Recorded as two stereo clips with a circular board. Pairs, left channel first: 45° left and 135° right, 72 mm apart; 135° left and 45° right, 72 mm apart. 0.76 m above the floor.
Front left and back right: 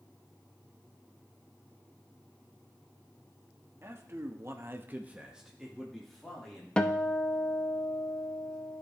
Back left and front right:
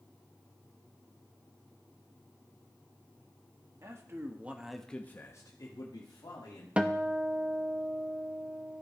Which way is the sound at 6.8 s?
Straight ahead.